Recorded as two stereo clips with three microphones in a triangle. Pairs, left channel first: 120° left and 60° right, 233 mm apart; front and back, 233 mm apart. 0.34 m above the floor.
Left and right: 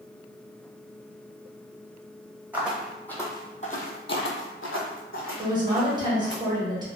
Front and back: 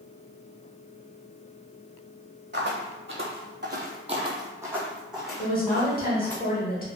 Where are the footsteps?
140° right, 0.8 m; by 6.4 s 80° left, 1.5 m.